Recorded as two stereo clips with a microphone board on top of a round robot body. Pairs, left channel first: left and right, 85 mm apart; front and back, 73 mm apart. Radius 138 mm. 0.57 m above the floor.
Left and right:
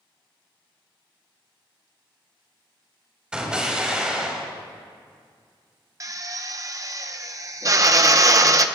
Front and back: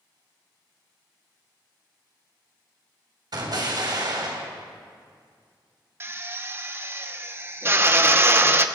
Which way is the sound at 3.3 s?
170° right.